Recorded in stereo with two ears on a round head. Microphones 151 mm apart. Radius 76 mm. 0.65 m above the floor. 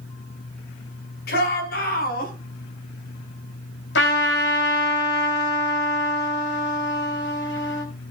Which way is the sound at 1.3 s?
65° left (ahead or behind).